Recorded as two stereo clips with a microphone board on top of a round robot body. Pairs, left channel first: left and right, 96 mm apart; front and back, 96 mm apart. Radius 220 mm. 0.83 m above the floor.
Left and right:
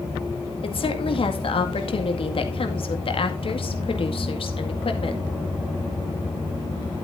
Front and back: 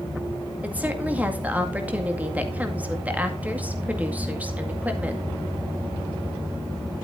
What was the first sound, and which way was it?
A woman speaking, 105° left.